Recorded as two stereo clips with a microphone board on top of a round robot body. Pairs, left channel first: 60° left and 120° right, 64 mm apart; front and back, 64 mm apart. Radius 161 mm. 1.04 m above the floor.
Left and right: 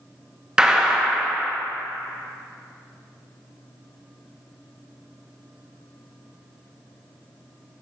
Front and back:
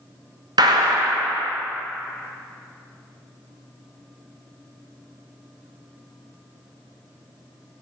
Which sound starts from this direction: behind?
A gunshot, at 0.6 s.